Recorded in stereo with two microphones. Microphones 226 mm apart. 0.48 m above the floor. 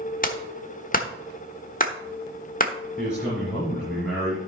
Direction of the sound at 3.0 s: 5° right (ahead or behind).